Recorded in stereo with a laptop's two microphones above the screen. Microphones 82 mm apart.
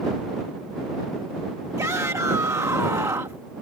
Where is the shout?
40° right (ahead or behind).